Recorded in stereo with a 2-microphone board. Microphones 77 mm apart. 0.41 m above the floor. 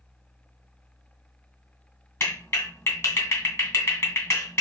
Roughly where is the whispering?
I don't hear whispering.